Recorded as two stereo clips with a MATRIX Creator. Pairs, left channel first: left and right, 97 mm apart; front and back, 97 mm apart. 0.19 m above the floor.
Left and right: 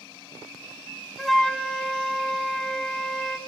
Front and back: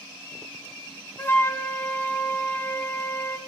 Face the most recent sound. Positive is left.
turn(degrees=10)